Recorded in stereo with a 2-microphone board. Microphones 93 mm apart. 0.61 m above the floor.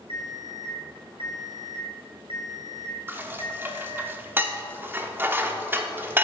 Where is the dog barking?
I don't hear a dog barking.